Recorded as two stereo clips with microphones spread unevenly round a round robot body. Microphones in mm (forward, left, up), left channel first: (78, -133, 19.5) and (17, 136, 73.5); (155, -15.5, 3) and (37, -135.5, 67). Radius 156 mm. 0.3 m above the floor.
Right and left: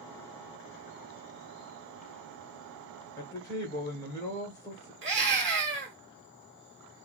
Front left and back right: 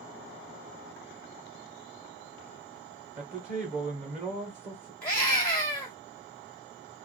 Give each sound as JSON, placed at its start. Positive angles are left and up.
{"t": 3.2, "sound": "a man speaking", "azimuth_deg": -95, "distance_m": 0.9}
{"t": 5.0, "sound": "a scream", "azimuth_deg": 75, "distance_m": 1.5}